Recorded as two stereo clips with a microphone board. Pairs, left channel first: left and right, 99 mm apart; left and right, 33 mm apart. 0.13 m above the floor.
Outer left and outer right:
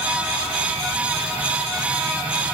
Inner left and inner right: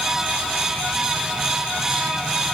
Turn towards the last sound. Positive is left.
No sound to turn to.